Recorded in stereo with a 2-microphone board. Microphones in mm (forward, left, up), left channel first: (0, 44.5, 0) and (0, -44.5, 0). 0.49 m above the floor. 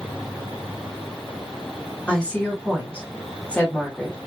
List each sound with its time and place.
2.1 s a woman speaking: 15° left (ahead or behind), 1.4 m